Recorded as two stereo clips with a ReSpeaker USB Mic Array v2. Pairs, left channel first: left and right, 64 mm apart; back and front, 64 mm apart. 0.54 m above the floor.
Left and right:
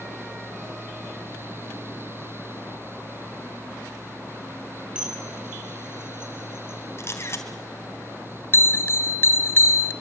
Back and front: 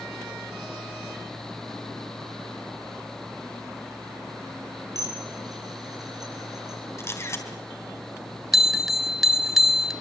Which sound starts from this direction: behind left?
A camera shutter, at 7.0 s.